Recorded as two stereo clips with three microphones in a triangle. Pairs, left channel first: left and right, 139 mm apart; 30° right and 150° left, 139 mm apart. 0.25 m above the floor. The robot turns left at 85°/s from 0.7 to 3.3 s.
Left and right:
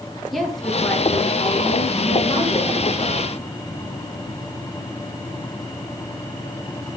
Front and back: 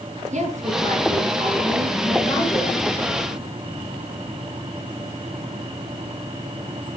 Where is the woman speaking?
Straight behind, 5 m; by 2.8 s straight ahead, 5 m.